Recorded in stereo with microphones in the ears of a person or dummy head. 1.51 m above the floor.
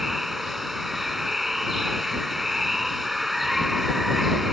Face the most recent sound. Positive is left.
turn(degrees=-5)  # may be behind; listen again after turning